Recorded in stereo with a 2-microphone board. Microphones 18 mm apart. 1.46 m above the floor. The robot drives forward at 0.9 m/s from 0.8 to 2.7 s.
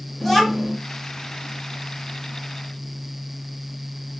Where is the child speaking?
5° left (ahead or behind), 1.7 m.